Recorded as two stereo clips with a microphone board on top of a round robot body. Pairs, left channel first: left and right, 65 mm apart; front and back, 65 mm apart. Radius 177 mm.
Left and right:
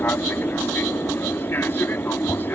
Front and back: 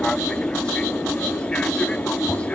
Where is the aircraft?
65° left; by 2.5 s 60° left.